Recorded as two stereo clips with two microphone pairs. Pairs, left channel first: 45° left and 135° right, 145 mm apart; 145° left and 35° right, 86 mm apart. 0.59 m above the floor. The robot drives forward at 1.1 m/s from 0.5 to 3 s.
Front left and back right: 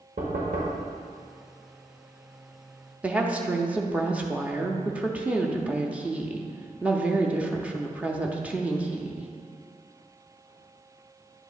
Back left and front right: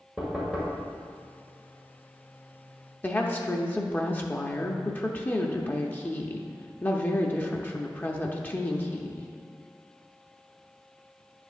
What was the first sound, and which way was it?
Knocking, 115° right.